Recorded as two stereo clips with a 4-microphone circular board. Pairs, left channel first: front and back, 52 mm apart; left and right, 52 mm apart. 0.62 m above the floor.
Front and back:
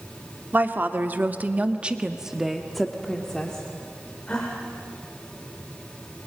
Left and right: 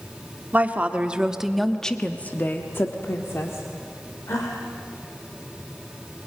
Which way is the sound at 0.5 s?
145° right.